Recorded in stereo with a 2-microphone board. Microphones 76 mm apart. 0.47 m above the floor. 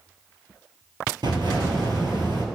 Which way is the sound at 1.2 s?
80° right.